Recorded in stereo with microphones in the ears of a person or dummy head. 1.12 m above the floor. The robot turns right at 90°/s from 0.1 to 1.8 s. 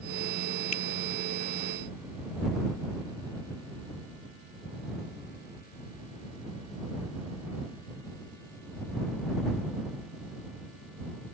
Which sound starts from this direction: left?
A finger snap, at 0.7 s.